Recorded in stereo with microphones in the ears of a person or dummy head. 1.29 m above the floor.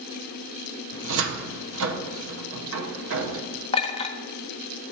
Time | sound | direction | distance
0.9 | a cupboard door | 65° right (ahead or behind) | 0.8 m
3.7 | a clink | 30° left (ahead or behind) | 0.7 m